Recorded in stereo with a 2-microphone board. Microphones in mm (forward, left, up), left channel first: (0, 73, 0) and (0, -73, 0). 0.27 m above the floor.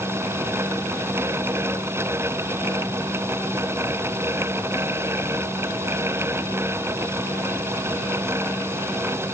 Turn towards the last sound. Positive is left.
No sound to turn to.